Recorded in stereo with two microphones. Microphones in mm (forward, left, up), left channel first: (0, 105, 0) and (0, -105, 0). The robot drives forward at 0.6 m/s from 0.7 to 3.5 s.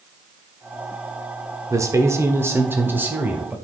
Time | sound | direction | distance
1.7 | a man speaking | 15° right (ahead or behind) | 0.9 m